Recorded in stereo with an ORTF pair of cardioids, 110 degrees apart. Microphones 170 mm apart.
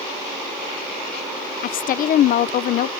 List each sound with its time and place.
1.6 s a woman speaking: 60° left